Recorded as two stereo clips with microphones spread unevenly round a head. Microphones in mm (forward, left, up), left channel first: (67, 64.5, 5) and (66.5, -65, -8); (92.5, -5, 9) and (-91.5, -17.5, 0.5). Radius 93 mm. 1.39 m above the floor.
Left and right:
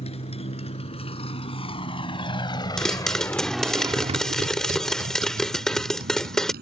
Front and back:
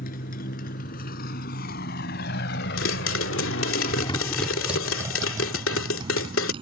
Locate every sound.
0.0 s a motorcycle: 50° left; by 6.6 s 110° right
2.8 s a pop: 5° left